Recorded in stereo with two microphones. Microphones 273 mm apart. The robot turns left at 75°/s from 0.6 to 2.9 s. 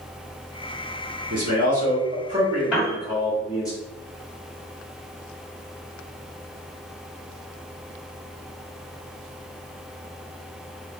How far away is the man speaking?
About 1.8 m.